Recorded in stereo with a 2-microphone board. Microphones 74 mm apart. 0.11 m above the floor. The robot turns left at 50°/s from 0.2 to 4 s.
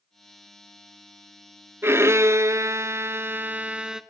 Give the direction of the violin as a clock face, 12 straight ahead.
2 o'clock.